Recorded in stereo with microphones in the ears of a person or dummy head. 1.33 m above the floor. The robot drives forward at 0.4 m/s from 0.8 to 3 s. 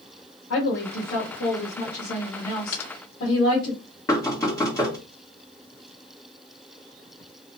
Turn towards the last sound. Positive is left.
turn(degrees=20)  # may be behind; listen again after turning